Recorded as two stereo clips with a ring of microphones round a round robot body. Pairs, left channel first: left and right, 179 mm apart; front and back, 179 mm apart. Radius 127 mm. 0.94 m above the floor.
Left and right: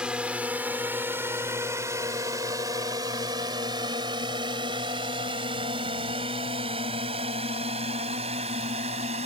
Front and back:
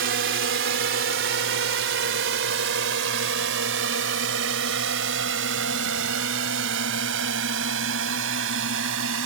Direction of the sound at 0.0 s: 175° right.